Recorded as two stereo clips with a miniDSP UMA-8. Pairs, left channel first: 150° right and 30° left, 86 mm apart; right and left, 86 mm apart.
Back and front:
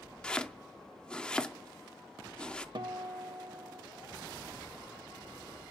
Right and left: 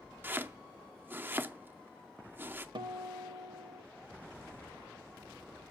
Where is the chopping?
140° left, 0.5 m.